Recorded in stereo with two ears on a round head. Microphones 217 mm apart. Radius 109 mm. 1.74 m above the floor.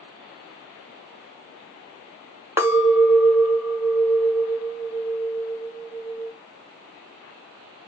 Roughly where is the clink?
Centre.